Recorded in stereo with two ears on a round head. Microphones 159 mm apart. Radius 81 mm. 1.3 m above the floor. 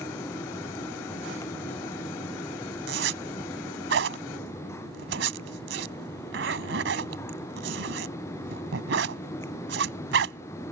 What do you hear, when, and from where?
2.9 s a zipper: 70° right (ahead or behind)